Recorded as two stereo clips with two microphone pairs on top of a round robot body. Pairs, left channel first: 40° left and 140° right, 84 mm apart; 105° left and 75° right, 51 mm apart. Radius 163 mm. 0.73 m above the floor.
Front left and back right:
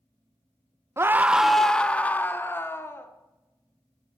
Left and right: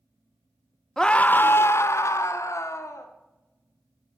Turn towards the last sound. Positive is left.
turn(degrees=105)